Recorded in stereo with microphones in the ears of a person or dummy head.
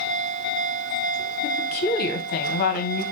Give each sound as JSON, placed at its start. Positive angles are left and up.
{"t": 1.4, "sound": "a woman speaking", "side_deg": 55, "distance_m": 0.8}